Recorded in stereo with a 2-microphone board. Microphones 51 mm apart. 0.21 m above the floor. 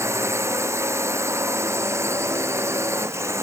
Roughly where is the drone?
Right.